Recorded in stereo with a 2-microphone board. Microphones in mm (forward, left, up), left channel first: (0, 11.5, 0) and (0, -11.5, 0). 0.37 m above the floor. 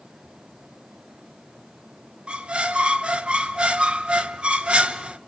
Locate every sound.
2.3 s a squeak: 50° right (ahead or behind), 0.7 m